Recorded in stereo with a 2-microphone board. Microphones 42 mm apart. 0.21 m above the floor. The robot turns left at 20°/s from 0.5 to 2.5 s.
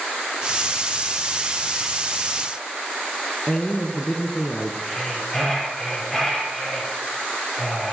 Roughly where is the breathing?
Centre.